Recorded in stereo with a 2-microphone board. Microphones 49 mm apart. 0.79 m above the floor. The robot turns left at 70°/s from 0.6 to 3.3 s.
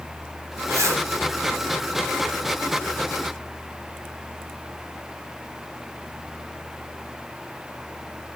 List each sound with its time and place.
0.7 s a zipper: 65° right (ahead or behind), 0.5 m; by 1.0 s 70° right (ahead or behind), 0.5 m